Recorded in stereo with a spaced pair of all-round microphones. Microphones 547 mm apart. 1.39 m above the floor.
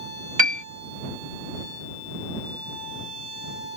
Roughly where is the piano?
Right.